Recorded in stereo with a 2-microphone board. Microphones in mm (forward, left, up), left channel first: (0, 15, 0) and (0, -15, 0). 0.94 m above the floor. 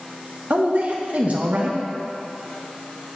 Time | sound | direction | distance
0.5 | a man speaking | 55° right (ahead or behind) | 0.8 m